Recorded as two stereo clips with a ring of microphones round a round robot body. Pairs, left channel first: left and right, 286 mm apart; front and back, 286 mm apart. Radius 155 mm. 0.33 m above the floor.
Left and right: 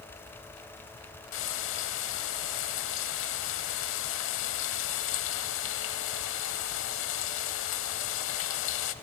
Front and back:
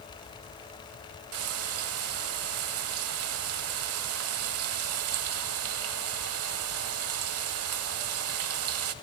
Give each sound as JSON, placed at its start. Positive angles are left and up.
{"t": 1.3, "sound": "frying", "azimuth_deg": 140, "distance_m": 0.7}